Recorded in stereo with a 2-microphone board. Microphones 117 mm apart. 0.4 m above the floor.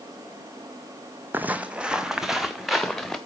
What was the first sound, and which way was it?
Footsteps, 15° right (ahead or behind).